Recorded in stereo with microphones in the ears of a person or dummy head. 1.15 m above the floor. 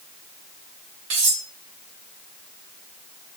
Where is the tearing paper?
No tearing paper in this recording.